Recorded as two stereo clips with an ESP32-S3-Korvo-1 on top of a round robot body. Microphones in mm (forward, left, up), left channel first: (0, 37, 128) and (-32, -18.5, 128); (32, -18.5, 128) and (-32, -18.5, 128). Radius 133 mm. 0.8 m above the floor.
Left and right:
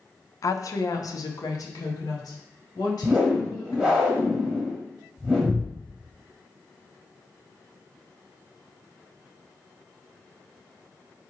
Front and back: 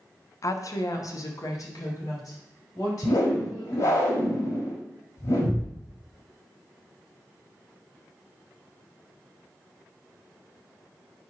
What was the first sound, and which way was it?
A woman speaking, 30° left.